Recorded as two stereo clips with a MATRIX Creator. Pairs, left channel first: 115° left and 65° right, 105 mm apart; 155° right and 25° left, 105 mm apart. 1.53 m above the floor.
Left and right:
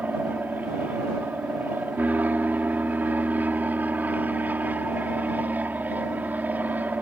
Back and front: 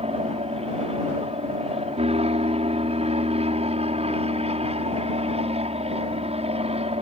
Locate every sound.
0.0 s an aircraft: 5° left